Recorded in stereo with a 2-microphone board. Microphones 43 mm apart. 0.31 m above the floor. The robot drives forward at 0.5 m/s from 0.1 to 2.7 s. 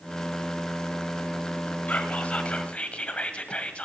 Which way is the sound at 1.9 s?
35° left (ahead or behind).